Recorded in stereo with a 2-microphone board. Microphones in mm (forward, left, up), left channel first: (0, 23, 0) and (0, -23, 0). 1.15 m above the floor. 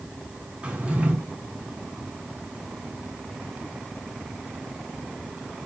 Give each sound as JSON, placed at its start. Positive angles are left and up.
{"t": 0.6, "sound": "a drawer", "side_deg": -30, "distance_m": 4.5}